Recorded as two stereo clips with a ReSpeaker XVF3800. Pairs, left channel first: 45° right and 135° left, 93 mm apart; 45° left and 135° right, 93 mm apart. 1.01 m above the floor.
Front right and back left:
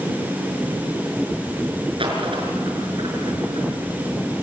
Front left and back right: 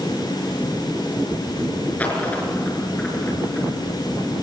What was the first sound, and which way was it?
A dropped coin, 120° left.